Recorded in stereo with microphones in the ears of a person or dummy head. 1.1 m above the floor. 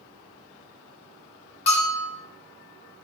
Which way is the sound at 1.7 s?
35° left (ahead or behind).